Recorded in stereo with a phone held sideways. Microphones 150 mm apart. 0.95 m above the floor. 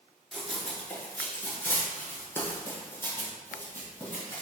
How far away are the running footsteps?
About 0.9 m.